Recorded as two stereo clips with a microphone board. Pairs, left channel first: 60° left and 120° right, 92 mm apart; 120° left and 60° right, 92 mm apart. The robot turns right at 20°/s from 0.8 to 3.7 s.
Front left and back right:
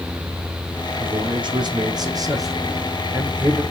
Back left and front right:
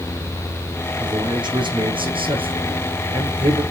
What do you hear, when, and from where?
1.0 s a man speaking: 100° right, 5 m; by 3.6 s 45° right, 5 m